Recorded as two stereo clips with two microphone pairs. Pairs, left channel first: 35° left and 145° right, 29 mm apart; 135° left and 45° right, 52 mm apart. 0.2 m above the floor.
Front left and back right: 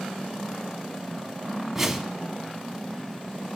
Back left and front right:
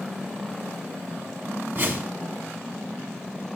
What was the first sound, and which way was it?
A whoosh, 70° right.